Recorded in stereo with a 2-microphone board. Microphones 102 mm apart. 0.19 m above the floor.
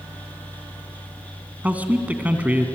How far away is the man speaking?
About 1.8 m.